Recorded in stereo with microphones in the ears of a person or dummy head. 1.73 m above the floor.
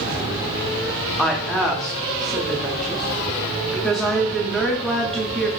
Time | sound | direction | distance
1.2 | a woman speaking | 5° left (ahead or behind) | 0.6 m